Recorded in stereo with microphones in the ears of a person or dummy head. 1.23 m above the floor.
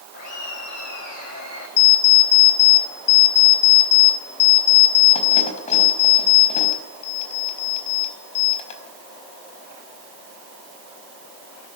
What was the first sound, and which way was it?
Laughter, 50° left (ahead or behind).